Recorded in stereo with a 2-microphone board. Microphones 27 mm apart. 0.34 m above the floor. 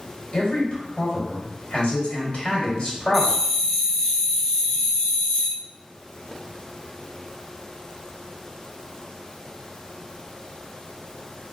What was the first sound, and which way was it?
A man speaking, 45° left (ahead or behind).